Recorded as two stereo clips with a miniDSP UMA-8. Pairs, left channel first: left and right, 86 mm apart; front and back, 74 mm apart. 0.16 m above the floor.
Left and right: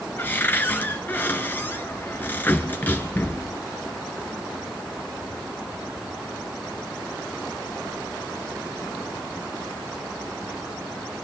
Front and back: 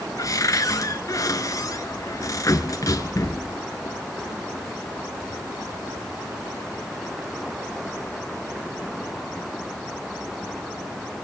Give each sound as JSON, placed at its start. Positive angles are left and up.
{"t": 0.2, "sound": "a cupboard door", "azimuth_deg": 25, "distance_m": 1.7}